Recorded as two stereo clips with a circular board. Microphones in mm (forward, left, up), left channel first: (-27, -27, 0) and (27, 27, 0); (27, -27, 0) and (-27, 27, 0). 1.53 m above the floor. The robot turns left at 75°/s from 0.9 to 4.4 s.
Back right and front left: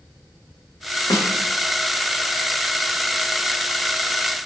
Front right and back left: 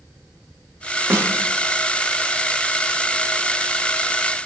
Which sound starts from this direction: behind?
A snare drum, at 1.1 s.